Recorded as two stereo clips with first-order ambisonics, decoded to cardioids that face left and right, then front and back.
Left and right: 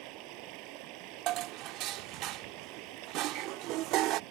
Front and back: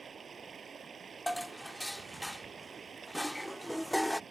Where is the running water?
110° right.